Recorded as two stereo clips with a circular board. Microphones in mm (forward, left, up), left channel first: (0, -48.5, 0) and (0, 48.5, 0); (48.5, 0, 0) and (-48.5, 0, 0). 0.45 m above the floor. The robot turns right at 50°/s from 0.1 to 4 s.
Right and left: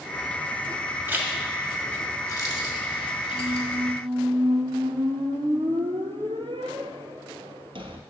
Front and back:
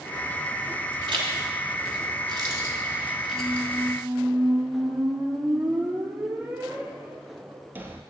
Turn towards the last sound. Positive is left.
turn(degrees=110)